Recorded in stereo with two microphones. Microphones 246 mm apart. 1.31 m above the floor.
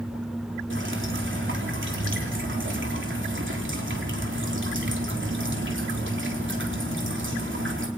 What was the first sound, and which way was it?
Dripping, 50° right (ahead or behind).